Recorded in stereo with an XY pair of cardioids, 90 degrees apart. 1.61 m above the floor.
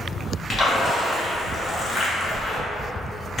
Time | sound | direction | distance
0.5 | a splash | 40° left | 0.7 m